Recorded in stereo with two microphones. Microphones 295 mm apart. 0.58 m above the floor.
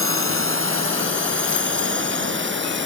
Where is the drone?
45° right (ahead or behind); by 2.9 s 40° right (ahead or behind).